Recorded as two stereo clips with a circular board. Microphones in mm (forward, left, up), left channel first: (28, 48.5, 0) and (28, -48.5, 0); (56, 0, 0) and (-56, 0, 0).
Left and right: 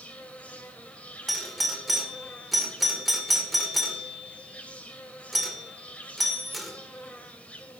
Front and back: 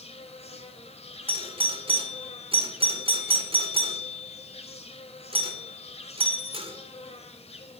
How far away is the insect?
About 1.8 m.